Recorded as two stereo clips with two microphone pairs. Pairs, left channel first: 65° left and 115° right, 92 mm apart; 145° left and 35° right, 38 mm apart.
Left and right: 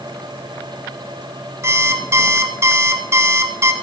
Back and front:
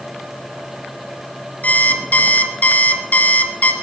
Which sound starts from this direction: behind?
An alarm clock, at 1.6 s.